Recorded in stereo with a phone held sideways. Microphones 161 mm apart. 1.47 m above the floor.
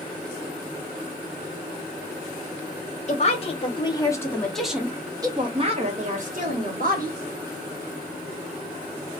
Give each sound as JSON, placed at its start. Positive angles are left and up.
{"t": 3.1, "sound": "a woman speaking", "side_deg": 45, "distance_m": 1.1}